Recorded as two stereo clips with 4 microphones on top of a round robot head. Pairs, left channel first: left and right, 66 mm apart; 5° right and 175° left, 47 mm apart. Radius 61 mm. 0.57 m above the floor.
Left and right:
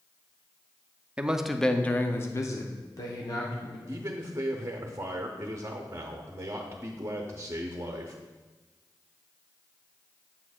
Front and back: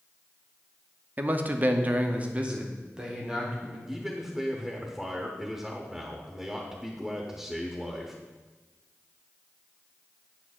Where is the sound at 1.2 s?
155° right, 0.7 m; by 3.8 s 100° left, 1.6 m.